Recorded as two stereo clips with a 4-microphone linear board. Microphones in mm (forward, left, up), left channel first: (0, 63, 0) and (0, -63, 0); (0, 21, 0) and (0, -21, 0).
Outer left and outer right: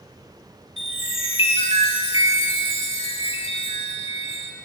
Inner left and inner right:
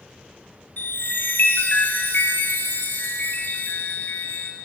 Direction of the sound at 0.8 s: 55° left (ahead or behind).